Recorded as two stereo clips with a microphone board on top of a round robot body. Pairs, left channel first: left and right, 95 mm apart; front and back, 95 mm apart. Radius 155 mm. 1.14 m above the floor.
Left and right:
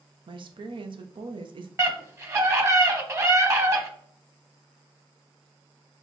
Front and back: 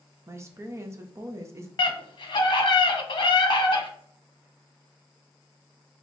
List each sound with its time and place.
0.3 s a woman speaking: 120° right, 0.7 m
1.8 s a scream: 35° right, 1.2 m